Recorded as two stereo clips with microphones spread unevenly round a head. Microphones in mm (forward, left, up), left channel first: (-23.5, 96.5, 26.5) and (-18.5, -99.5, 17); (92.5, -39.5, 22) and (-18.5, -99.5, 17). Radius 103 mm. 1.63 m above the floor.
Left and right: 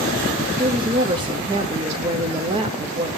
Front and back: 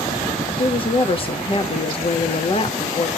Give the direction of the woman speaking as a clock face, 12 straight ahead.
1 o'clock.